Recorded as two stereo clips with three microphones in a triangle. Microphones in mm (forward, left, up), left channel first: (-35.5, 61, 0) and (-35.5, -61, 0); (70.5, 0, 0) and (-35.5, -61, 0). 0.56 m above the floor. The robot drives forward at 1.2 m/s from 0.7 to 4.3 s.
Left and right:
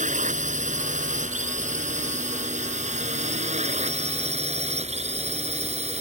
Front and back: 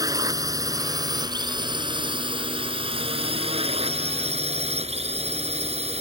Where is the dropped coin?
I don't hear a dropped coin.